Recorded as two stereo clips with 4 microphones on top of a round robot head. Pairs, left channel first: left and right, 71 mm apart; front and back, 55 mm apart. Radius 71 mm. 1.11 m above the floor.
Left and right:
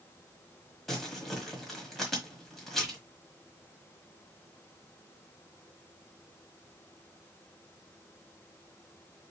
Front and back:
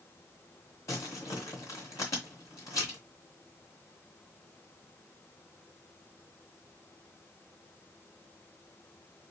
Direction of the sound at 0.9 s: 5° left.